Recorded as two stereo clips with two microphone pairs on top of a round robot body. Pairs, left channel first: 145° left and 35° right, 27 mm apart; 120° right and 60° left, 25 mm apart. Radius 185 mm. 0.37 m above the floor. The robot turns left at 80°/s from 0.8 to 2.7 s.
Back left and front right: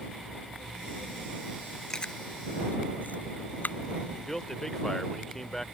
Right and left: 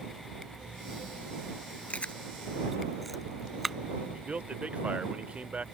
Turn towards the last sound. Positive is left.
turn(degrees=70)